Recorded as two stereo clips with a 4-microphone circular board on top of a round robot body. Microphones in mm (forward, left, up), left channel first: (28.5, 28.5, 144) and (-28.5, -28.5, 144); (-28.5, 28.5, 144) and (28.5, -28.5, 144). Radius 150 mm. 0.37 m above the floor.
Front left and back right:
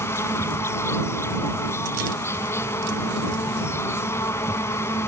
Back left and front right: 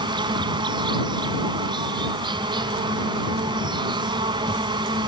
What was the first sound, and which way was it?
An insect, 15° right.